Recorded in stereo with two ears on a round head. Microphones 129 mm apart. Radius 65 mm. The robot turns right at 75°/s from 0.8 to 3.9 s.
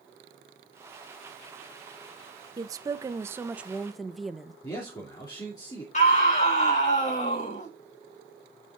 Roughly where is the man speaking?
Left.